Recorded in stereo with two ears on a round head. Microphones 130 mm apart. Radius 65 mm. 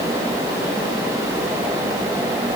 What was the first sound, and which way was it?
Only background noise.